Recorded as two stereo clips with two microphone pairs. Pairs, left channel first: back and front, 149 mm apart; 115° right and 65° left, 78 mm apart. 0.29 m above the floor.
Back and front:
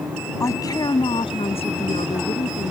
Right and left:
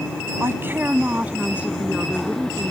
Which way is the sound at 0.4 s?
110° left.